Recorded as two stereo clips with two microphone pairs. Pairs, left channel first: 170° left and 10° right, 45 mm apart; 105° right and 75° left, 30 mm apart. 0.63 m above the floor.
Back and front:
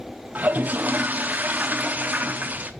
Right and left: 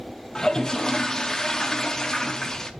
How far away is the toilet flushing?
About 0.6 m.